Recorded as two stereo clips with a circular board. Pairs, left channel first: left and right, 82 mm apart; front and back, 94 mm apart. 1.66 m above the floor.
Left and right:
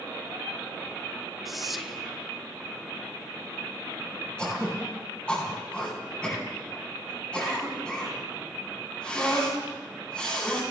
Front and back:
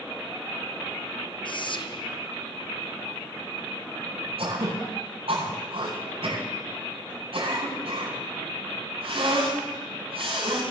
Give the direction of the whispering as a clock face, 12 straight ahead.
12 o'clock.